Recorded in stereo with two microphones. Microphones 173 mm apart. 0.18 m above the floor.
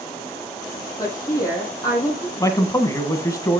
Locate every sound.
1.0 s a woman speaking: 20° left (ahead or behind), 6 m
2.4 s a man speaking: 20° left (ahead or behind), 1.3 m